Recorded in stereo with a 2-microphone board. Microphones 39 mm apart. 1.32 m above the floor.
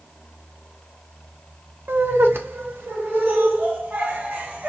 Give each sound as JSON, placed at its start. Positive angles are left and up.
{"t": 1.9, "sound": "laughter", "side_deg": -75, "distance_m": 1.1}